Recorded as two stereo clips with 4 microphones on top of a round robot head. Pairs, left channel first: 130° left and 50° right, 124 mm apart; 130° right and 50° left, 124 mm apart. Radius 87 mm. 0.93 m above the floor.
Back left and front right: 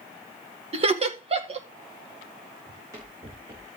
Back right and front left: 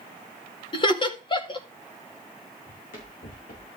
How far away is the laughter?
About 2 m.